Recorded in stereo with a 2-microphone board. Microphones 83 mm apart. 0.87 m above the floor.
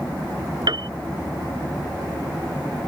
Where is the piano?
60° right (ahead or behind).